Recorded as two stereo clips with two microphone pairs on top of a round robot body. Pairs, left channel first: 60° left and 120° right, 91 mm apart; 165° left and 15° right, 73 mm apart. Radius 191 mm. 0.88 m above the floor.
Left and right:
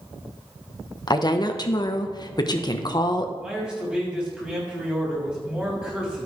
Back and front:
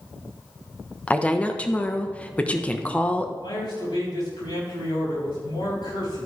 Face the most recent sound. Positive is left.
turn(degrees=165)